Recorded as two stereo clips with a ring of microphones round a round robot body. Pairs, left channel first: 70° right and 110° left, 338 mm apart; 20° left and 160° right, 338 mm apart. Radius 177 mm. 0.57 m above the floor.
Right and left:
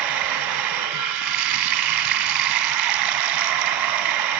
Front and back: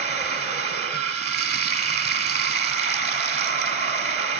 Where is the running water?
130° left, 2 m.